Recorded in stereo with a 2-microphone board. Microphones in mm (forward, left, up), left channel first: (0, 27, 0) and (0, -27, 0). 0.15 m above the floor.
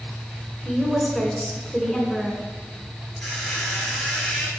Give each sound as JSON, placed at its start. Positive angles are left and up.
{"t": 0.7, "sound": "a woman speaking", "side_deg": 5, "distance_m": 1.4}
{"t": 3.2, "sound": "a squeak", "side_deg": 0, "distance_m": 1.9}